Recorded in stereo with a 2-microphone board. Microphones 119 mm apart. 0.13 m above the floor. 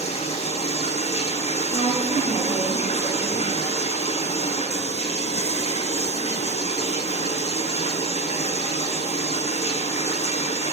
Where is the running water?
65° left (ahead or behind), 0.7 m.